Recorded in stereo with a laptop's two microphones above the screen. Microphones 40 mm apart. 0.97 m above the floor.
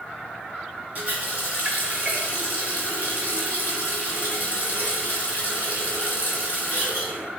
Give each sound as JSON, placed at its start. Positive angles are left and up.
{"t": 0.9, "sound": "a running tap", "side_deg": -35, "distance_m": 2.0}